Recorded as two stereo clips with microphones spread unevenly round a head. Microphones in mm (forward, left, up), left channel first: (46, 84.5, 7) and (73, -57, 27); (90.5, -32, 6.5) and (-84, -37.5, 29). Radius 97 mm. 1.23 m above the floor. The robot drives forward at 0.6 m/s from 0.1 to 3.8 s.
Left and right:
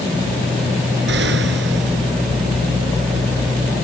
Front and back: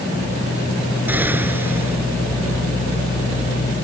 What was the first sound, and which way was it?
An explosion, 100° right.